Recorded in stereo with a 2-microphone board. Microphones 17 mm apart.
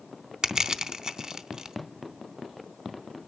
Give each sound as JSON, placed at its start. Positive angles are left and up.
{"t": 0.4, "sound": "crushing", "side_deg": -50, "distance_m": 0.7}